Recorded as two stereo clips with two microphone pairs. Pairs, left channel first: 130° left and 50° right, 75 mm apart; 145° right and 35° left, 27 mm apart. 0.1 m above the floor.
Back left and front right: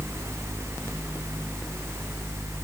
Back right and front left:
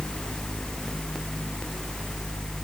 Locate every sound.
Only background noise.